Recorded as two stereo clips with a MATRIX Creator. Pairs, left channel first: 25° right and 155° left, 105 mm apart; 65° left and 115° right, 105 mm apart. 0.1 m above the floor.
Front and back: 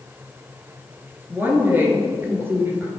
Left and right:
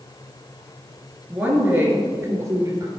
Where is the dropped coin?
No dropped coin in this recording.